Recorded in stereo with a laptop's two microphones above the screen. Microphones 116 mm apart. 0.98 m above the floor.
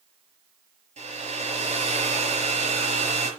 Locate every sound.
1.0 s a hair dryer: 75° right (ahead or behind), 6 m